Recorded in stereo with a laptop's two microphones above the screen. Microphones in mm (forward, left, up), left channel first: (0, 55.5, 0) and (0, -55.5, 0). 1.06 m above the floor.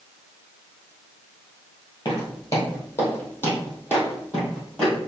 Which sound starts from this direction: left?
Footsteps, at 2.0 s.